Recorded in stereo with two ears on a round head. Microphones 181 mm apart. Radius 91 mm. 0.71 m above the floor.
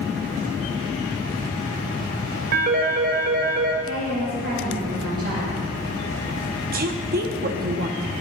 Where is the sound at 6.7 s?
45° right (ahead or behind), 0.8 m.